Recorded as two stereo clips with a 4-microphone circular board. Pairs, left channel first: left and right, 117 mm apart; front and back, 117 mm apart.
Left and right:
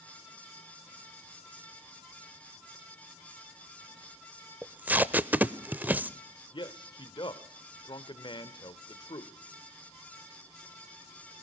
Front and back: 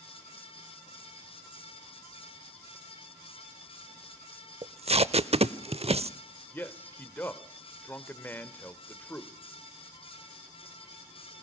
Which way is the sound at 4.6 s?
165° right.